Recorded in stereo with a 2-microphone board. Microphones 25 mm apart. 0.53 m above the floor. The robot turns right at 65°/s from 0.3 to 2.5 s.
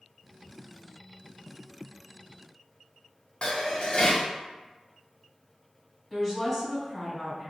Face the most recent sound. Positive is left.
turn(degrees=10)  # may be behind; listen again after turning